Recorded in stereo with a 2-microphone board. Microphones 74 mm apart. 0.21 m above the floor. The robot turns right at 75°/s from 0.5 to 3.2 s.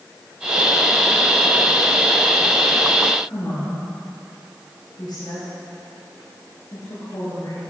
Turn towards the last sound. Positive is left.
turn(degrees=65)  # may be behind; listen again after turning